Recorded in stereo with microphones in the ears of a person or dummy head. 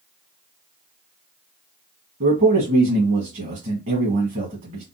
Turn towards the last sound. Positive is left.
turn(degrees=-50)  # may be behind; listen again after turning